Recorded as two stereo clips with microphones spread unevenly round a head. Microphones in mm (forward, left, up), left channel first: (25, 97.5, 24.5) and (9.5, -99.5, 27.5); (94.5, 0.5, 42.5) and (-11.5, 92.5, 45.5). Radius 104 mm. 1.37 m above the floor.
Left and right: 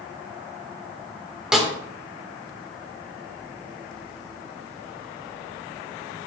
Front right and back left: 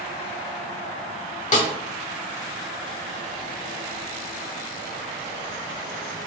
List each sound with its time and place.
1.5 s a snare drum: 5° right, 1.6 m